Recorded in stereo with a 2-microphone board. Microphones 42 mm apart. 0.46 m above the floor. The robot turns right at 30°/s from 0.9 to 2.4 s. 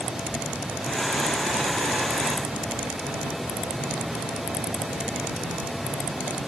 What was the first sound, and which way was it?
Only background noise.